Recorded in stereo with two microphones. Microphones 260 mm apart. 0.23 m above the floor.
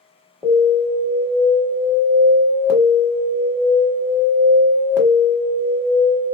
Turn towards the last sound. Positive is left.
turn(degrees=5)  # may be behind; listen again after turning